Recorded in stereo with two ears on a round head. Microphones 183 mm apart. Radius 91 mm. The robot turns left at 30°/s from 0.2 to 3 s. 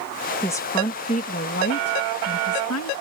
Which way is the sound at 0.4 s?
165° left.